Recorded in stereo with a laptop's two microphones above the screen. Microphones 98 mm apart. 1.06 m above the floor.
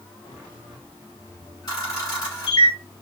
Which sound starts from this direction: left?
A camera shutter, at 1.7 s.